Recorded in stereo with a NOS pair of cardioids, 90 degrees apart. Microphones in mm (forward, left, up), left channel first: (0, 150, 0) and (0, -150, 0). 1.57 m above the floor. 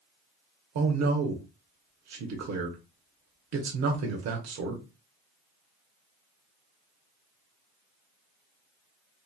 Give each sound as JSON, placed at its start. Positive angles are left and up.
{"t": 0.8, "sound": "a man speaking", "azimuth_deg": -60, "distance_m": 0.9}